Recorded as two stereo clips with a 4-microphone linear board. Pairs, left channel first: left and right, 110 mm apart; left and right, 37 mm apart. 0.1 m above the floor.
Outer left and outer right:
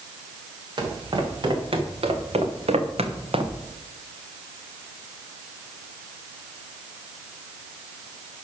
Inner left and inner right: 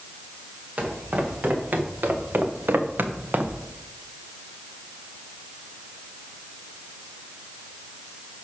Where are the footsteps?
45° right (ahead or behind), 4 m; by 3.6 s 50° right (ahead or behind), 2.0 m.